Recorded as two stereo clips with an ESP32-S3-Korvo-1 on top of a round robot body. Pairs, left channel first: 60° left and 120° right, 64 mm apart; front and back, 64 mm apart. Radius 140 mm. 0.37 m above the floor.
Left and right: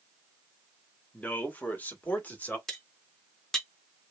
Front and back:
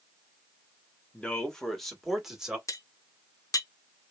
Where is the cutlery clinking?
25° right, 0.9 m.